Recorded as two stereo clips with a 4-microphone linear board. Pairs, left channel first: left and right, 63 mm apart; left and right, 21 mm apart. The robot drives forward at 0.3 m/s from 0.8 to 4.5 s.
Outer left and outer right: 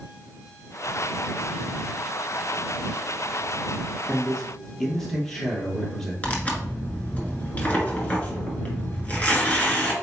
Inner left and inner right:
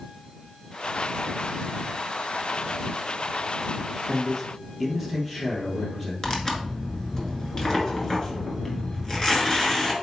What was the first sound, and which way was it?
A man speaking, 5° left (ahead or behind).